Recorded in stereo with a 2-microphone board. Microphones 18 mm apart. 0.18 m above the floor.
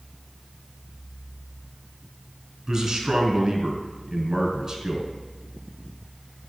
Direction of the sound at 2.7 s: 25° right (ahead or behind).